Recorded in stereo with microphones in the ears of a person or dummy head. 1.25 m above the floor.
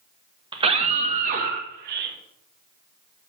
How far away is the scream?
About 1.4 m.